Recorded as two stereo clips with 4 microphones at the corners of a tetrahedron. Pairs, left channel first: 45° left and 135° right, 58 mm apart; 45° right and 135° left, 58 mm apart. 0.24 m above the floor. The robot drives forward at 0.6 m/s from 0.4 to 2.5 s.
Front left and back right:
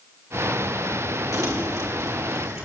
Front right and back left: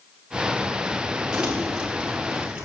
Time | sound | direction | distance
1.3 | crumpling | 150° right | 4 m